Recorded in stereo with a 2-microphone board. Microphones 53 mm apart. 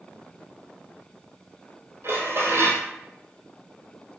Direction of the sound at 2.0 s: 55° right (ahead or behind).